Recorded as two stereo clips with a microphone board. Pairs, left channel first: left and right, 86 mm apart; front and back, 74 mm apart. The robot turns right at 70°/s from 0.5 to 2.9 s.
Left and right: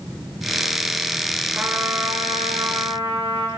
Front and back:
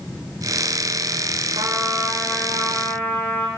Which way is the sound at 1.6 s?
160° right.